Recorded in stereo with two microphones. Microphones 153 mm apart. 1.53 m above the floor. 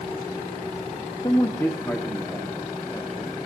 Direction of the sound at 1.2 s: 35° left (ahead or behind).